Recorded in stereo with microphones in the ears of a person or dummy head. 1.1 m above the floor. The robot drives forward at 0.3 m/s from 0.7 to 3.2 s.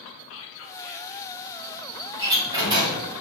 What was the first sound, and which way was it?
Whispering, 65° left (ahead or behind).